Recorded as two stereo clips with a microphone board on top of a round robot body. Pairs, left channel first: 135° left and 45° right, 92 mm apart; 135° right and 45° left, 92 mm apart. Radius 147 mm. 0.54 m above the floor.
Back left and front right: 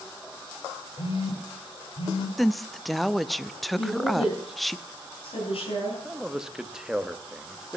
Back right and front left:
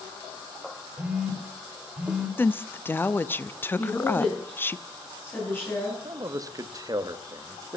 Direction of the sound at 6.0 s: 35° left.